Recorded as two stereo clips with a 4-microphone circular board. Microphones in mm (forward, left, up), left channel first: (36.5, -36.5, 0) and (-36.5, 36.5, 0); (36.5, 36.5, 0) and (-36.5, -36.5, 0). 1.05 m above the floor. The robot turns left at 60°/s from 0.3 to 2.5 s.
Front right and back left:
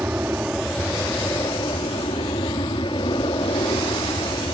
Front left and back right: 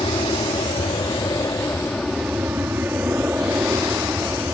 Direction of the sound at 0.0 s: 65° left.